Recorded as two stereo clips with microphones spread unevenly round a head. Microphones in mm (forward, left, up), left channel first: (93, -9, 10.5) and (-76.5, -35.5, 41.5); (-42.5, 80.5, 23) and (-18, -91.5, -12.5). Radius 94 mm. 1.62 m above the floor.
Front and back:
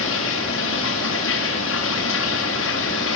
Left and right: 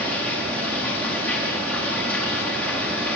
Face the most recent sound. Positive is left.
turn(degrees=15)